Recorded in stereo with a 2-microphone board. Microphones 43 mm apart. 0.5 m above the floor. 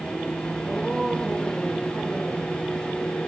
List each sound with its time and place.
0.6 s a woman speaking: 15° left (ahead or behind), 6 m